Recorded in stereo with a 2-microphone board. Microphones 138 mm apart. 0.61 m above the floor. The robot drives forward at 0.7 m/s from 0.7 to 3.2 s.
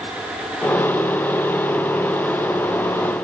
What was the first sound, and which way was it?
Only background noise.